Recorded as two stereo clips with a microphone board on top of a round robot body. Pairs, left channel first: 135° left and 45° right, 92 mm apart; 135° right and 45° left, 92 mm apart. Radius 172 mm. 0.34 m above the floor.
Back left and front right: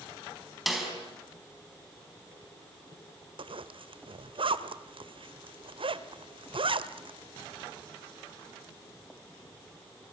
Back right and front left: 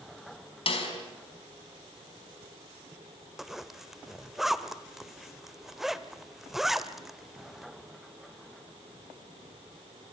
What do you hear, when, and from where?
0.7 s a snare drum: 135° right, 5 m
3.4 s a zipper: 40° right, 1.3 m